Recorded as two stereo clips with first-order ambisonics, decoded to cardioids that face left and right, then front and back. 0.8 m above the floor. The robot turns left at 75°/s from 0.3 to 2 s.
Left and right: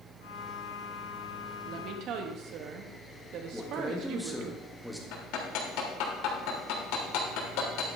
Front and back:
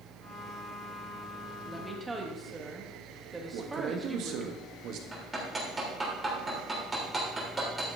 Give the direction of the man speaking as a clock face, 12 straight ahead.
6 o'clock.